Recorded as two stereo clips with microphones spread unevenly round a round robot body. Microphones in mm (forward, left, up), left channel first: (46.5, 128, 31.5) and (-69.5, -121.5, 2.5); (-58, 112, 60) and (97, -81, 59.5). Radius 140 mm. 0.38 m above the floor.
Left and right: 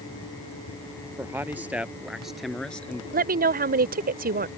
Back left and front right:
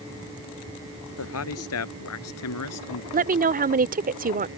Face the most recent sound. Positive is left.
turn(degrees=-85)